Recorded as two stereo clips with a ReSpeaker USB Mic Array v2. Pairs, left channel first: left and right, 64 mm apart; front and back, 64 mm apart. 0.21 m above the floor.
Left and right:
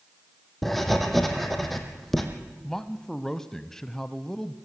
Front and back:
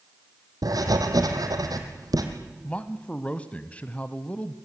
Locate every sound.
0.6 s writing: 175° left, 3 m
2.6 s a man speaking: 20° left, 1.0 m